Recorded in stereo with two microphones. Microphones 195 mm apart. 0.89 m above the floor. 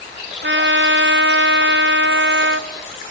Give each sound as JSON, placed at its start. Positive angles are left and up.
{"t": 0.4, "sound": "a trumpet", "side_deg": -70, "distance_m": 0.7}